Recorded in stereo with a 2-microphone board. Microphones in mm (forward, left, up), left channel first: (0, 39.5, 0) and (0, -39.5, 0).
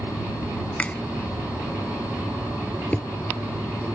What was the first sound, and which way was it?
A finger snap, 15° left (ahead or behind).